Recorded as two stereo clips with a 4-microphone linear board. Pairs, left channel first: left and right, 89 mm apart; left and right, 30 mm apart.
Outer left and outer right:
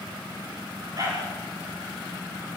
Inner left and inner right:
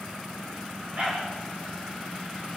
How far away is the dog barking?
About 9.5 m.